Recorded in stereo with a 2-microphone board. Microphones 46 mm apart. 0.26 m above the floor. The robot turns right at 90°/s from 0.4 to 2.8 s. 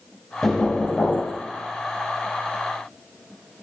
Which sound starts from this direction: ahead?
Knocking, at 0.4 s.